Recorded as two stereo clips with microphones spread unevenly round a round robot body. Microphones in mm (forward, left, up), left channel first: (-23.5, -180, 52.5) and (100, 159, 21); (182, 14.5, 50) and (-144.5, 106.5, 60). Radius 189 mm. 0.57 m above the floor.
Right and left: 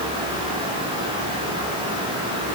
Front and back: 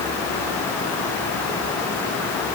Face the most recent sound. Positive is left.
No sound to turn to.